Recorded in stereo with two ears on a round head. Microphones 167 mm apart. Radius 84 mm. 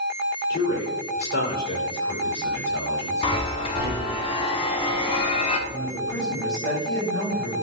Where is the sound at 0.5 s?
45° left (ahead or behind), 3 m; by 4.2 s 70° left (ahead or behind), 4.5 m.